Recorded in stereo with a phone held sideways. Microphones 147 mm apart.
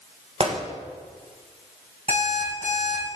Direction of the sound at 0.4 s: 45° right (ahead or behind).